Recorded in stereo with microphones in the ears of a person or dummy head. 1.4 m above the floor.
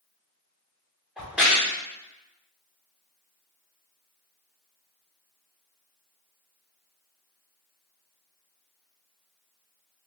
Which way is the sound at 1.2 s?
5° right (ahead or behind).